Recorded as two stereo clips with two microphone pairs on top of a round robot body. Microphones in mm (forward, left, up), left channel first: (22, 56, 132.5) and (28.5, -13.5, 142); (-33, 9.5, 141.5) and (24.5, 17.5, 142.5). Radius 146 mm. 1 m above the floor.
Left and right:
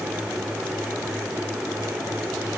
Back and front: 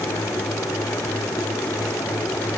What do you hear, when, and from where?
Only background noise.